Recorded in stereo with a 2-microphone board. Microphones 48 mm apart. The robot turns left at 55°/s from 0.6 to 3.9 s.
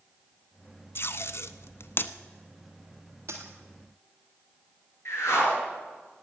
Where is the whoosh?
70° left (ahead or behind), 3.5 m.